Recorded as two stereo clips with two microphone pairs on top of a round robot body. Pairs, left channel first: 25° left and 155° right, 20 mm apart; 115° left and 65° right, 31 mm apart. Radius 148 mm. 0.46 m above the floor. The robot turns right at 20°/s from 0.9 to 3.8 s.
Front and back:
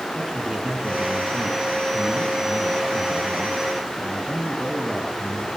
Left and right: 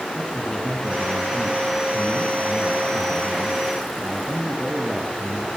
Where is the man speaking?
175° left, 8 m; by 5.5 s 125° right, 8 m.